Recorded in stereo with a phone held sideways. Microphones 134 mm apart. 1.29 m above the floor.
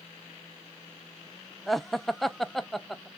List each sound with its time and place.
1.7 s laughter: centre (ahead or behind), 0.5 m